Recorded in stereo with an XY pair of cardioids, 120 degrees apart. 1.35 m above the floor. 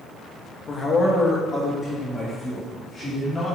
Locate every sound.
0.7 s a man speaking: 35° left, 1.3 m; by 3.6 s 10° left, 2.5 m